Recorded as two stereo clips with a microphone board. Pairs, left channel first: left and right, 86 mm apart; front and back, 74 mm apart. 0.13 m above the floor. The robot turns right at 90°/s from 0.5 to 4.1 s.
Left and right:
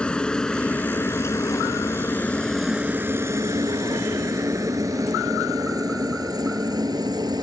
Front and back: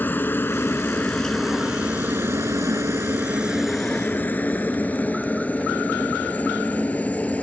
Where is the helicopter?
25° left; by 7.4 s 70° right.